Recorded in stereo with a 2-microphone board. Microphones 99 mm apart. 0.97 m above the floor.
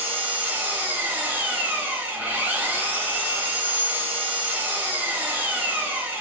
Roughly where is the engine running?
Right.